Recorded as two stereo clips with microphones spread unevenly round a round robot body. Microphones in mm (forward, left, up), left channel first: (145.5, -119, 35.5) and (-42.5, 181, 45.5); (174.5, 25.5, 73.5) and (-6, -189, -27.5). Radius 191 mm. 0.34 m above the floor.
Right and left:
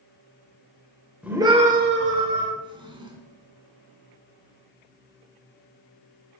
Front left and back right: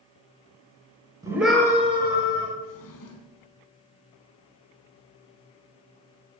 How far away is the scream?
About 1.7 m.